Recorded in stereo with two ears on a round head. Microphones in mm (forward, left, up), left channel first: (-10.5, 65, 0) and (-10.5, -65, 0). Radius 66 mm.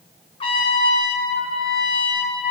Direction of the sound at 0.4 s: 40° left (ahead or behind).